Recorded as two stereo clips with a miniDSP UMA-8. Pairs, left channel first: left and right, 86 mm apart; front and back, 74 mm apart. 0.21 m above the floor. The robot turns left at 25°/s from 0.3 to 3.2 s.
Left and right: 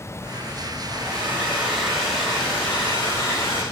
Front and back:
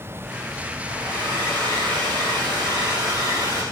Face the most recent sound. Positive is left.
turn(degrees=155)